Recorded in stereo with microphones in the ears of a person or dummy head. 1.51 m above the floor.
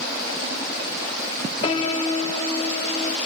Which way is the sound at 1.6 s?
35° left (ahead or behind).